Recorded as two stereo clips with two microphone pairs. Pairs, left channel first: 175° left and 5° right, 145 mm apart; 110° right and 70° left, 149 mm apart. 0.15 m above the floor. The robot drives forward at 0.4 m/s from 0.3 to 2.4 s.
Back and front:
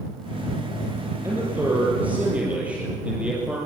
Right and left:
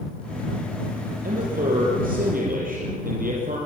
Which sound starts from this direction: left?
A man speaking, at 1.2 s.